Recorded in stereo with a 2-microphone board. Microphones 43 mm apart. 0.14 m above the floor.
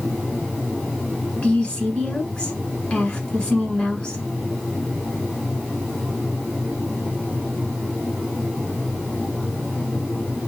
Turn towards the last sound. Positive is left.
turn(degrees=20)  # may be behind; listen again after turning